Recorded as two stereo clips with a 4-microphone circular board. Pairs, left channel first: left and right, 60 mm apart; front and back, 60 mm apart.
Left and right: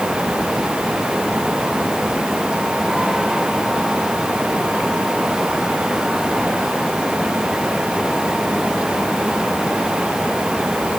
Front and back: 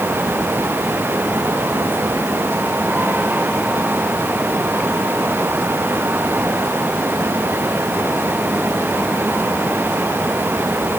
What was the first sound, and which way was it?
Only background noise.